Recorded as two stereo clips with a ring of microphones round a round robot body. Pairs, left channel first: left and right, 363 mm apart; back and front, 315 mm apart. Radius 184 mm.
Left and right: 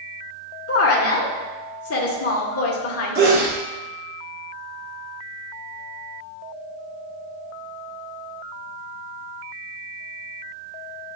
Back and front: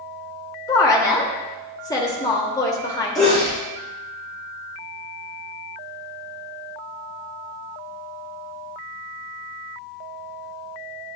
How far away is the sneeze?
About 1.6 m.